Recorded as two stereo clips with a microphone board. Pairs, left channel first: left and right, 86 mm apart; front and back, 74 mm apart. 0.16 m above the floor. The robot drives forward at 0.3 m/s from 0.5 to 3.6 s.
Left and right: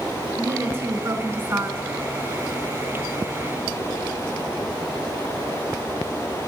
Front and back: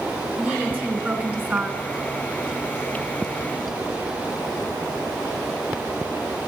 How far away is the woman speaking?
About 1.7 m.